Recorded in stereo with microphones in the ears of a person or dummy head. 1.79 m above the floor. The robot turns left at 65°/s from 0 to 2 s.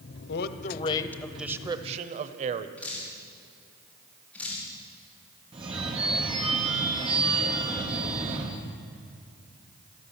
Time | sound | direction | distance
0.3 | a man speaking | 70° left | 1.0 m
2.8 | dripping | 5° left (ahead or behind) | 4.5 m
5.5 | a phone ringing | 20° right (ahead or behind) | 0.9 m